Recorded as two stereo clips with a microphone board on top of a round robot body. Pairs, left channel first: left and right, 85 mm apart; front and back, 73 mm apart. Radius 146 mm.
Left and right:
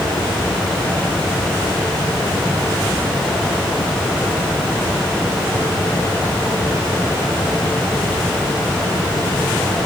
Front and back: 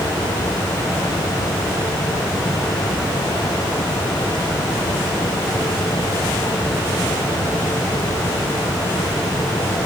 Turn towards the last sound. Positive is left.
No sound to turn to.